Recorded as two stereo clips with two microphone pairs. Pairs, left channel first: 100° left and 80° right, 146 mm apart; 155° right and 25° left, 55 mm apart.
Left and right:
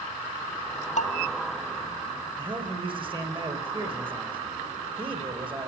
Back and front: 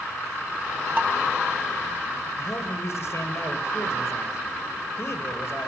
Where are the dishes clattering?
70° left, 1.8 m.